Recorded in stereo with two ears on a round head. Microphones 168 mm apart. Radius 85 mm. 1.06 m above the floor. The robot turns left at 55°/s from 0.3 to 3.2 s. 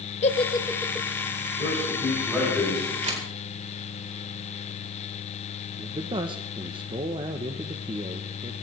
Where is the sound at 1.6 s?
135° right, 9 m; by 2.9 s 150° left, 9 m.